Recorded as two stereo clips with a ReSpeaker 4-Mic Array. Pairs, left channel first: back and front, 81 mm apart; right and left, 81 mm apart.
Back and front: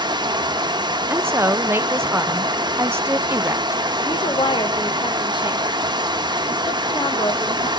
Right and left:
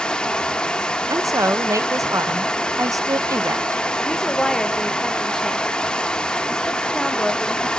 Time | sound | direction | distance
0.0 | running water | 10° right | 0.8 m
1.1 | a woman speaking | 55° left | 0.6 m
4.0 | a woman speaking | 175° right | 1.4 m